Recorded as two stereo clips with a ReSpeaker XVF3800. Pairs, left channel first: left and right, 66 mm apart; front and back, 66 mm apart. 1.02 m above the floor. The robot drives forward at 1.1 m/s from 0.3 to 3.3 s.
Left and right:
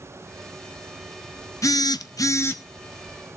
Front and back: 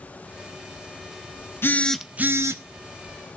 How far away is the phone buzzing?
About 0.6 m.